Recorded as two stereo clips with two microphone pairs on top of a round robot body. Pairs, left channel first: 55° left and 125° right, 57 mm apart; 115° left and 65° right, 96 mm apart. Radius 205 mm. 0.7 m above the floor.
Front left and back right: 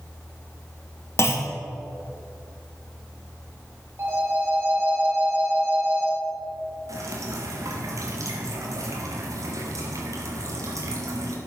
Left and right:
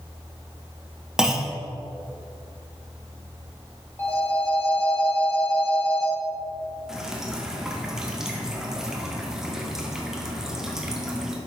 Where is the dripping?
150° right, 1.9 m.